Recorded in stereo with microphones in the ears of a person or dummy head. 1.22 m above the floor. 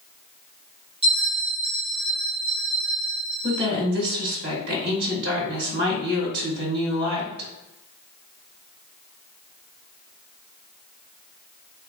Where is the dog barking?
No dog barking in this recording.